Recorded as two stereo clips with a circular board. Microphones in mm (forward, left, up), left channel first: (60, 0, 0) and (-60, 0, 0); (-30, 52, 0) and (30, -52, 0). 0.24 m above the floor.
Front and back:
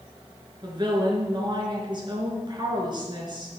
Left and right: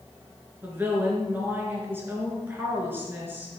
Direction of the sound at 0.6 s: 130° right.